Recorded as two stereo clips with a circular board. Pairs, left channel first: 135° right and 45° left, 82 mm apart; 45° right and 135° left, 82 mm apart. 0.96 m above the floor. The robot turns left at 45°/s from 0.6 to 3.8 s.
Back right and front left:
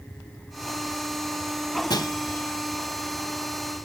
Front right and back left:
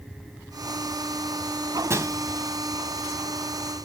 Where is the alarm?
I don't hear an alarm.